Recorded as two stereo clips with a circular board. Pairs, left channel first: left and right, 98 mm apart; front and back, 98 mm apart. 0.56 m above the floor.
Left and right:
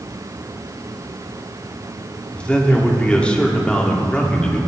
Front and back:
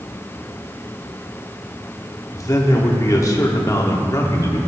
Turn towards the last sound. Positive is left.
turn(degrees=20)